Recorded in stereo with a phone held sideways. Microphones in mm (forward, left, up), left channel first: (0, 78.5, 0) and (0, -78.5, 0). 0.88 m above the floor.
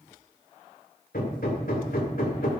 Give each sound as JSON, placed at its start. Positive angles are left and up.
{"t": 1.1, "sound": "hammering", "side_deg": 65, "distance_m": 2.0}